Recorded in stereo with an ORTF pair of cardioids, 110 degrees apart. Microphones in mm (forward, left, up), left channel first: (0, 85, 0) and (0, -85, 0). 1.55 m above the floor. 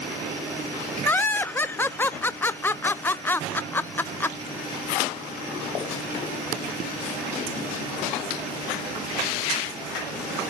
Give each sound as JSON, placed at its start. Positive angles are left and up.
{"t": 1.1, "sound": "laughter", "azimuth_deg": 10, "distance_m": 0.5}